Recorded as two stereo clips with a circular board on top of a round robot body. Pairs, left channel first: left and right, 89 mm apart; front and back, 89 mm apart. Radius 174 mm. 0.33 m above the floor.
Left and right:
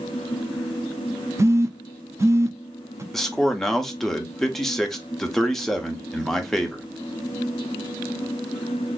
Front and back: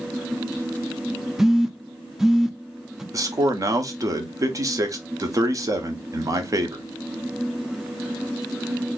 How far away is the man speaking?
About 1.0 m.